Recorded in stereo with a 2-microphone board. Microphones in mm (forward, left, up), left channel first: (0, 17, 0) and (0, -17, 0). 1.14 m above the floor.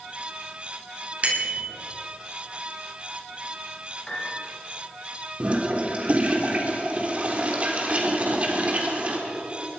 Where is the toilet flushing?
40° right (ahead or behind), 3.5 m.